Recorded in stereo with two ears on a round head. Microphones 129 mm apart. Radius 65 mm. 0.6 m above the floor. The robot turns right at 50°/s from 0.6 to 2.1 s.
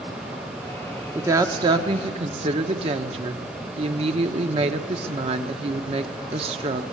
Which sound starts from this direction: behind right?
A woman speaking, at 1.1 s.